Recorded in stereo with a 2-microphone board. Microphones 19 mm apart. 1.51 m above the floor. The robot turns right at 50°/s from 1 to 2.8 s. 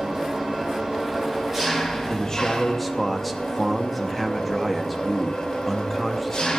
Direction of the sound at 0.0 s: 50° right.